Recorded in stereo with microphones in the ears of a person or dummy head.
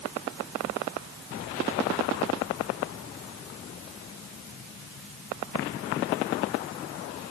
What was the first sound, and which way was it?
Only background noise.